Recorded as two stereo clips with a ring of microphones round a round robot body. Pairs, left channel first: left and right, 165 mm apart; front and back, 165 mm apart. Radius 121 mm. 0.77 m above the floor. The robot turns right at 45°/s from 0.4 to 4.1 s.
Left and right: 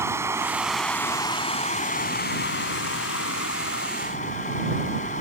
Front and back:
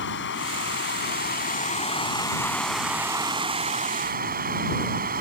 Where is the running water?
15° right; by 5.2 s 150° left.